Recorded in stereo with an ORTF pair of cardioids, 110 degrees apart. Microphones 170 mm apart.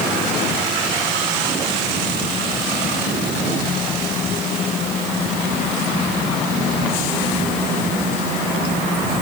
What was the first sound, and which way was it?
Only background noise.